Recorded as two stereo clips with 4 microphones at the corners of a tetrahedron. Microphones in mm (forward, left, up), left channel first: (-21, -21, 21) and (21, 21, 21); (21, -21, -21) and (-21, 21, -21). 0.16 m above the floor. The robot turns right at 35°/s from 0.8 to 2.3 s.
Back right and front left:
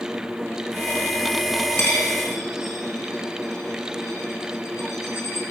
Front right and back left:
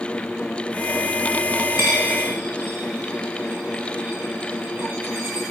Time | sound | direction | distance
1.8 | a dropped coin | straight behind | 1.9 m